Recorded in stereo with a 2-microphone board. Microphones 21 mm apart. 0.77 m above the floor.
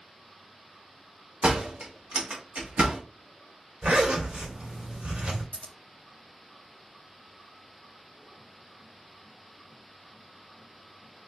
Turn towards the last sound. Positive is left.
turn(degrees=75)  # may be behind; listen again after turning